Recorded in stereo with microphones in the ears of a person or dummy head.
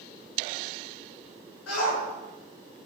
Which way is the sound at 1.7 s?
90° left.